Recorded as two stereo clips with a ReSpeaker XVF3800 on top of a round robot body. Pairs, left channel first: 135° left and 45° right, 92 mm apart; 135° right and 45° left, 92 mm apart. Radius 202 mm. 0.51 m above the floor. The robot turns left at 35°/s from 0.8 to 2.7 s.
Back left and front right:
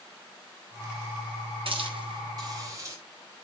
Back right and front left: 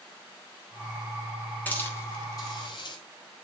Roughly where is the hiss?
Ahead right.